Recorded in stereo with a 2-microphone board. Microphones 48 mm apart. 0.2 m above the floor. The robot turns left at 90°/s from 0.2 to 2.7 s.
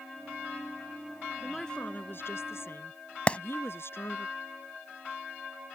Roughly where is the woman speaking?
Behind.